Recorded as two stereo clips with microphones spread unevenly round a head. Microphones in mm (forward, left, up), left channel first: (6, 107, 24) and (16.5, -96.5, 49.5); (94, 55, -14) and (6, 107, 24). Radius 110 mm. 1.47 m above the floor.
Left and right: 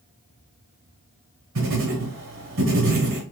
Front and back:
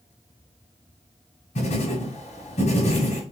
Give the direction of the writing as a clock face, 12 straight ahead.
2 o'clock.